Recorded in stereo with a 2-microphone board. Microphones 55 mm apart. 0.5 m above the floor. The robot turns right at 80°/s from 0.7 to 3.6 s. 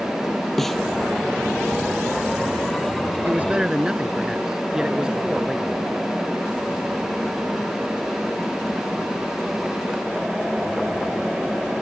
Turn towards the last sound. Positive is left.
turn(degrees=-10)  # may be behind; listen again after turning